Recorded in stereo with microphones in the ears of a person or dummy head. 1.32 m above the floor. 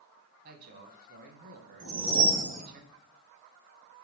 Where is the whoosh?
60° right (ahead or behind), 0.9 m.